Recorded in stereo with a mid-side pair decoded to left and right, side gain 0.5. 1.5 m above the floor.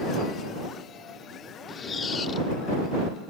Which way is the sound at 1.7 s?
40° left.